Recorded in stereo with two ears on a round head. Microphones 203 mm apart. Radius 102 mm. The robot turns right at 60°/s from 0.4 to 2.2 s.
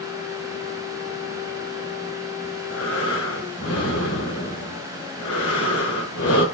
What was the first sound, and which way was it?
Breathing, 65° left (ahead or behind).